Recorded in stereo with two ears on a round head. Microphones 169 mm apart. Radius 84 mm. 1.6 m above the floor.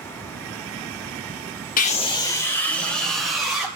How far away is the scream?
About 1.0 m.